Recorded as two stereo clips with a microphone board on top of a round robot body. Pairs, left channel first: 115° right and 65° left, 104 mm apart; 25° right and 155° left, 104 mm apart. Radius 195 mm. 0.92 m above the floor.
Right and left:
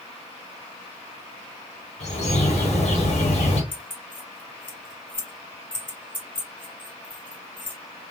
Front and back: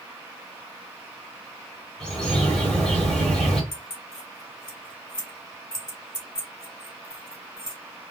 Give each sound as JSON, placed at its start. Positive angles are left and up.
{"t": 2.0, "sound": "a bird", "azimuth_deg": -105, "distance_m": 1.2}
{"t": 3.7, "sound": "keys jangling", "azimuth_deg": -75, "distance_m": 1.8}